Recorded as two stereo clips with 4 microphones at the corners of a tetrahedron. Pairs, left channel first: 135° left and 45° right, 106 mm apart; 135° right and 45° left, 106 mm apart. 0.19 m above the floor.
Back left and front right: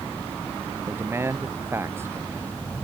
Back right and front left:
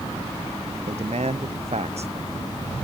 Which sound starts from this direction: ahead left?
A man speaking, at 0.9 s.